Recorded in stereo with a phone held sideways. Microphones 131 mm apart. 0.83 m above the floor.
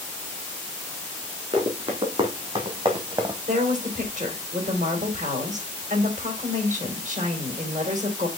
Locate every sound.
1.5 s running footsteps: 50° right (ahead or behind), 3 m; by 3.4 s 35° right (ahead or behind), 1.6 m
3.5 s a woman speaking: 70° right (ahead or behind), 3.5 m